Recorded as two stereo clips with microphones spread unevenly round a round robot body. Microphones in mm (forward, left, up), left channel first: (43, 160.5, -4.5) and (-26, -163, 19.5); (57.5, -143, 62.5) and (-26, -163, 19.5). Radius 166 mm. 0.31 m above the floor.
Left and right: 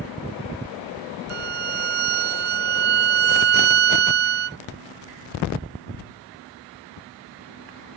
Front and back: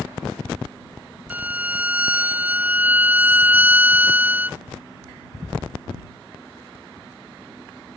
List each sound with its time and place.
1.3 s a violin: 95° right